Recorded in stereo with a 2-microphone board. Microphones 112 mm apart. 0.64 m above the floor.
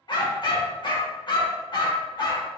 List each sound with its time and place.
0.1 s a dog barking: 45° left (ahead or behind), 0.8 m